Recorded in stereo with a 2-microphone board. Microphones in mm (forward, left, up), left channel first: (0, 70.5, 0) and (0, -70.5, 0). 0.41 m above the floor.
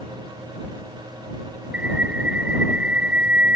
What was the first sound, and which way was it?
A bird, 10° right (ahead or behind).